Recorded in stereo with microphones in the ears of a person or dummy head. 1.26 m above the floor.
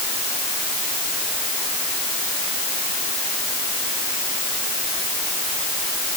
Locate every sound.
Only background noise.